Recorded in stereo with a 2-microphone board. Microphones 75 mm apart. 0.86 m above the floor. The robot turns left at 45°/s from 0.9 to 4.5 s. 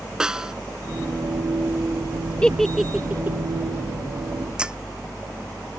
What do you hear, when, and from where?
0.2 s a snare drum: 10° right (ahead or behind)
2.4 s a giggle: 15° left (ahead or behind); by 3.4 s 30° right (ahead or behind)
4.6 s breaking glass: 10° right (ahead or behind)